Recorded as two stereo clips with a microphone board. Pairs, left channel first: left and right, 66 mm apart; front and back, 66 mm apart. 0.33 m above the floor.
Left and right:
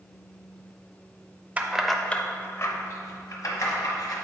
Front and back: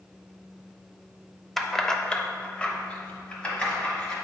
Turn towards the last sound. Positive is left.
turn(degrees=70)